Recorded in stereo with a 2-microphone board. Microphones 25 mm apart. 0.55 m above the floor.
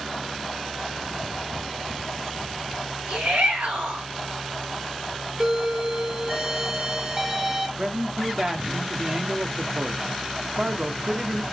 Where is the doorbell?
25° right (ahead or behind), 2.5 m.